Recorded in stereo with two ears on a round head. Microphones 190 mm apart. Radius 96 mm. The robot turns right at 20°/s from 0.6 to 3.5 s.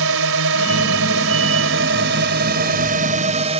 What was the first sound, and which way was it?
A drone, 90° right.